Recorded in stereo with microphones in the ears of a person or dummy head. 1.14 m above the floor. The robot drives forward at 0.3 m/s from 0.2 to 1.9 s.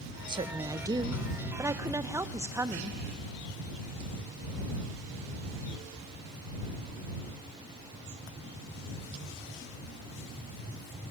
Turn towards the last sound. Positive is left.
turn(degrees=-10)  # may be behind; listen again after turning